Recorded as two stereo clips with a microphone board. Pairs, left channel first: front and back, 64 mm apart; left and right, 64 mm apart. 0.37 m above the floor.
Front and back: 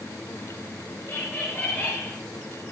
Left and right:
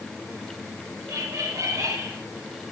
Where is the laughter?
55° right, 7 m; by 2.1 s 60° right, 8 m.